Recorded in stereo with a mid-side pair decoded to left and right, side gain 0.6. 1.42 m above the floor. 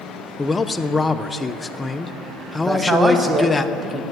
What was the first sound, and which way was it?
A man speaking, 20° left.